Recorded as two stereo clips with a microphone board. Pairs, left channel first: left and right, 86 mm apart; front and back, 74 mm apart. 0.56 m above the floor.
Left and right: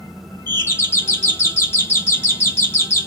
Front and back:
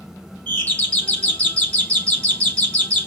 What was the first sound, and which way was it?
A doorbell, 55° left.